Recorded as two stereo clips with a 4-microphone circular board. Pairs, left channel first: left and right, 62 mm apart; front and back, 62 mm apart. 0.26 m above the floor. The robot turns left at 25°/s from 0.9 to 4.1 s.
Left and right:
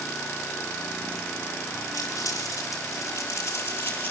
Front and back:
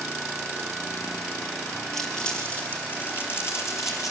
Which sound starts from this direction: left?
Crumpling, at 1.9 s.